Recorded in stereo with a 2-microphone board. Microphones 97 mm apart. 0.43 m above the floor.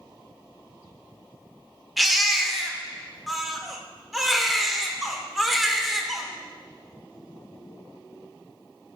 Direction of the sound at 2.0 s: Centre (ahead or behind).